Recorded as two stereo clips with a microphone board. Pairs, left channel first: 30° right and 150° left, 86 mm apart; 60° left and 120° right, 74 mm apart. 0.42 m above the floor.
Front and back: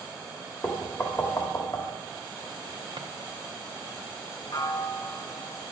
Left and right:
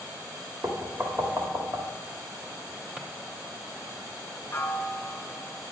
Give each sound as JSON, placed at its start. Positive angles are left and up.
{"t": 0.6, "sound": "knocking", "azimuth_deg": -80, "distance_m": 1.4}
{"t": 3.0, "sound": "a drawer", "azimuth_deg": 160, "distance_m": 1.1}
{"t": 4.5, "sound": "a piano", "azimuth_deg": 5, "distance_m": 0.9}